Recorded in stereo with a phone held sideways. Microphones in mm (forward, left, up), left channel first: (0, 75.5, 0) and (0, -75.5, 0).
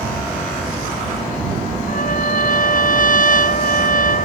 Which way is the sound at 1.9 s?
65° left (ahead or behind).